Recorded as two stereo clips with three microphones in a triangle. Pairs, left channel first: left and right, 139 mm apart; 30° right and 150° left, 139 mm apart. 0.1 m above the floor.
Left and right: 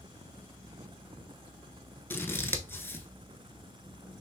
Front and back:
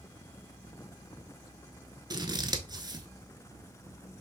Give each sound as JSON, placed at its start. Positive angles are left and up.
{"t": 2.1, "sound": "scissors", "azimuth_deg": 145, "distance_m": 0.5}